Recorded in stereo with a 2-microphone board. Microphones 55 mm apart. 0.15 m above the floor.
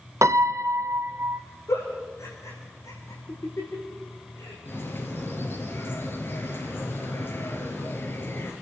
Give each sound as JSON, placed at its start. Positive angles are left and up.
{"t": 0.2, "sound": "a piano", "side_deg": -70, "distance_m": 1.1}
{"t": 1.7, "sound": "a giggle", "side_deg": 60, "distance_m": 8.0}
{"t": 4.7, "sound": "a bird", "side_deg": 45, "distance_m": 3.5}